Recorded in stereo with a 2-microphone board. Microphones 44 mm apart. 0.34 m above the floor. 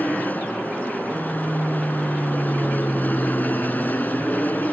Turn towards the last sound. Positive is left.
turn(degrees=40)  # may be behind; listen again after turning